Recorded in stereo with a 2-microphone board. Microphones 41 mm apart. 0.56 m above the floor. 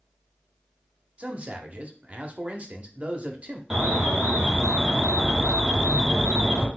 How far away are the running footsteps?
No running footsteps in this recording.